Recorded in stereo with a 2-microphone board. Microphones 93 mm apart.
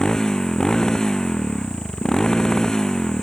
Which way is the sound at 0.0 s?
5° left (ahead or behind).